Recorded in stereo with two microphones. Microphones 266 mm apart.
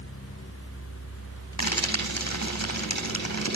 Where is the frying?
65° left (ahead or behind), 3.5 m.